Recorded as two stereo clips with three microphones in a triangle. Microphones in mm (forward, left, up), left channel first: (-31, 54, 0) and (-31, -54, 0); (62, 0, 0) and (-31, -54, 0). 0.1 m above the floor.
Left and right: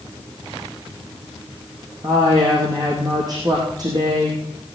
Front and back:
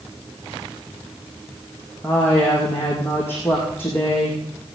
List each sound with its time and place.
2.0 s a woman speaking: 40° right, 4 m